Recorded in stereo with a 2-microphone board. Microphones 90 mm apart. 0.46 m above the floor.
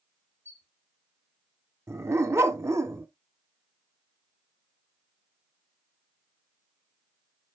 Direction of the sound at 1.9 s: 30° right (ahead or behind).